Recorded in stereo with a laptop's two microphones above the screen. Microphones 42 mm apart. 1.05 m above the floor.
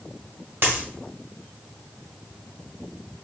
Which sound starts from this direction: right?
A dropped coin, at 0.6 s.